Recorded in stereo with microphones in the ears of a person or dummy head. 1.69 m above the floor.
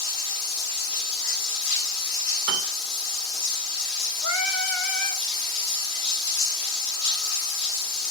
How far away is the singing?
About 1.2 m.